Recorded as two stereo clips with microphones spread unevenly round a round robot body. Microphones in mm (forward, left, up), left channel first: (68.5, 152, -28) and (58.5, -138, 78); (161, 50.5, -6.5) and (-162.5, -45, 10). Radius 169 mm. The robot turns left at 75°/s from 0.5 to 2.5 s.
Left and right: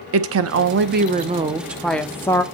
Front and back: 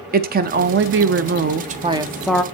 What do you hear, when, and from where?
0.1 s a woman speaking: 125° right, 0.7 m; by 2.4 s 90° left, 0.7 m